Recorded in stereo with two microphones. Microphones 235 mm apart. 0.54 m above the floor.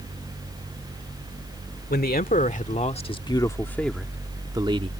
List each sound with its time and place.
1.9 s a man speaking: 40° left (ahead or behind); by 4.9 s 25° right (ahead or behind)